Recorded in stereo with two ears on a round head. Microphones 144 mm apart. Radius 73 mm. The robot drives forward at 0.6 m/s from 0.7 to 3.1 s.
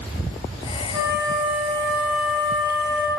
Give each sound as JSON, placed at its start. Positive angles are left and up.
{"t": 0.9, "sound": "a flute", "side_deg": -25, "distance_m": 0.9}